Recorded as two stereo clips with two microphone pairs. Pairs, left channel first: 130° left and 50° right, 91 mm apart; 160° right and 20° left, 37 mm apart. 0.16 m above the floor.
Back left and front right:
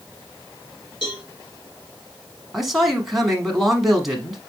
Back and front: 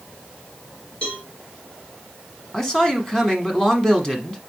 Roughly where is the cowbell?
Behind left.